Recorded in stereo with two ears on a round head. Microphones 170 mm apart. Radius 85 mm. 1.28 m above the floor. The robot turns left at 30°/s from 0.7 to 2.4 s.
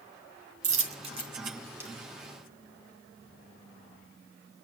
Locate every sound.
0.6 s a dropped coin: 40° right (ahead or behind), 2.0 m; by 1.9 s 10° right (ahead or behind), 2.0 m